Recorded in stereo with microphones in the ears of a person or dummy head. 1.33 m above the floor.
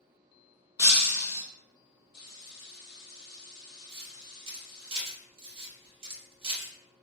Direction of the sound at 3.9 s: 30° right (ahead or behind).